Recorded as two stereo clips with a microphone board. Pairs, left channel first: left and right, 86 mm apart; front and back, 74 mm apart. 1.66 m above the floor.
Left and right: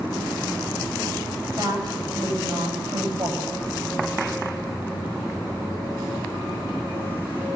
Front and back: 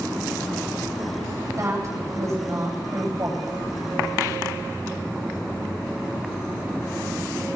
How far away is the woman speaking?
About 10 m.